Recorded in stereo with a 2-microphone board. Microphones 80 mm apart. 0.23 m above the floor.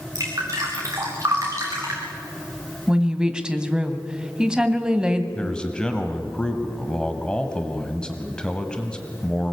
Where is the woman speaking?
10° right (ahead or behind), 1.5 m.